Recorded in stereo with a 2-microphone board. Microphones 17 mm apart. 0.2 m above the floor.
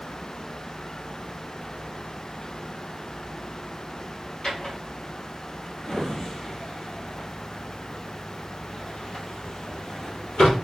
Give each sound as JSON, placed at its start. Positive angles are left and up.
{"t": 4.4, "sound": "a drawer", "side_deg": 35, "distance_m": 2.5}